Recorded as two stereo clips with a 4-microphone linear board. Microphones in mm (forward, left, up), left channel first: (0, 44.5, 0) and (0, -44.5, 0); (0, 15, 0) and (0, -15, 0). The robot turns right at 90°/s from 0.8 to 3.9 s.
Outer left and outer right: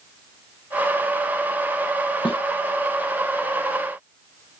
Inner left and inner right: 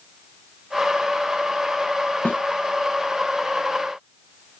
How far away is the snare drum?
About 1.0 m.